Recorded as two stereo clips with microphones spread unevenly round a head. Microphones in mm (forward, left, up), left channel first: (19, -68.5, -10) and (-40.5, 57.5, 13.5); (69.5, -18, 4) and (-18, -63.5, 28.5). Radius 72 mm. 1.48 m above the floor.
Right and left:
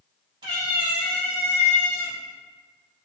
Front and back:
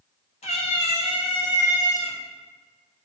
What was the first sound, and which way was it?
A cat meowing, 75° left.